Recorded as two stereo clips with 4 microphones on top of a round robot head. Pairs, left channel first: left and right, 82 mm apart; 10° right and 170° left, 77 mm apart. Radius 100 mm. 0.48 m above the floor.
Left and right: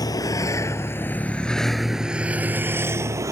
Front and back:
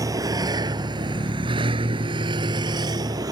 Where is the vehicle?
130° left; by 3.3 s 140° right.